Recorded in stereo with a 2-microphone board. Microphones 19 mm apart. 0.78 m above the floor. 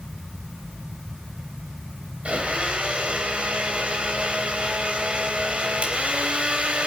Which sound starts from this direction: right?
A blender, at 2.2 s.